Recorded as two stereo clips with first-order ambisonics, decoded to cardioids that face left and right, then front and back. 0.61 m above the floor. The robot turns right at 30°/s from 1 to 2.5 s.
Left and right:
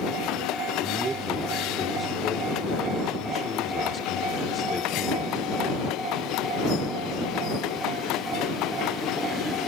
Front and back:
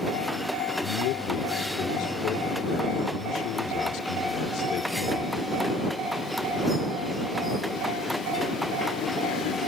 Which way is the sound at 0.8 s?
20° right.